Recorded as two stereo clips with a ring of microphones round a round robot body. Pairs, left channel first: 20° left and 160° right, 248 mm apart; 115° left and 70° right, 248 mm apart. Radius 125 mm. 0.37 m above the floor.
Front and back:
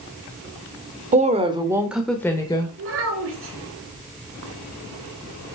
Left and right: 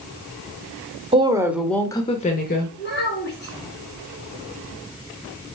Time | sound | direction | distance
1.1 | a woman speaking | 120° right | 1.0 m
2.8 | a child speaking | 165° left | 3 m